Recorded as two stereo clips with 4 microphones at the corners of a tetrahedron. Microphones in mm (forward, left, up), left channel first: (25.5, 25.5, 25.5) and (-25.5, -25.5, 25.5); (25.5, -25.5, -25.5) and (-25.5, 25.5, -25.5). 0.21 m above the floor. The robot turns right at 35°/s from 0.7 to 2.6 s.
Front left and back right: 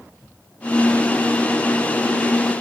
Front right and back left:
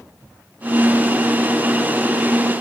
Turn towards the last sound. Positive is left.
No sound to turn to.